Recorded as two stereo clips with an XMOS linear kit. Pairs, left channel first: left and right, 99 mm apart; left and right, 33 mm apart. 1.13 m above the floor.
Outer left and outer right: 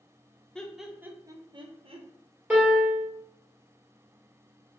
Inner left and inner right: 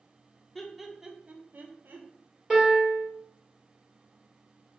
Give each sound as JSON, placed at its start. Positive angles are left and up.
{"t": 0.6, "sound": "laughter", "side_deg": 10, "distance_m": 0.7}
{"t": 2.5, "sound": "a piano", "side_deg": -10, "distance_m": 1.9}